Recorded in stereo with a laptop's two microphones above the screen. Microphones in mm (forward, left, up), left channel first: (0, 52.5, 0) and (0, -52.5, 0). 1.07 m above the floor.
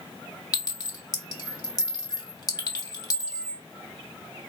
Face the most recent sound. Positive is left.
turn(degrees=40)  # may be behind; listen again after turning